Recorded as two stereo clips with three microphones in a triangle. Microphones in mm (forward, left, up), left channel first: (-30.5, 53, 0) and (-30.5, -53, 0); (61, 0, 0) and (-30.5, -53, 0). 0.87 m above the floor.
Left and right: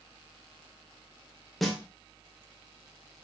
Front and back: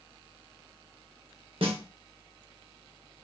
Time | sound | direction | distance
1.6 | a snare drum | straight behind | 1.1 m